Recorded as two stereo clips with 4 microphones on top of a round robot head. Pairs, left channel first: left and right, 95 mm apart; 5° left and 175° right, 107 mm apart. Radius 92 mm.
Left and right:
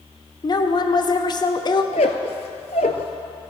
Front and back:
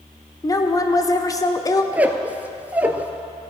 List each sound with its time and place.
0.4 s a woman speaking: 60° left, 1.1 m
1.9 s a squeak: 115° left, 0.6 m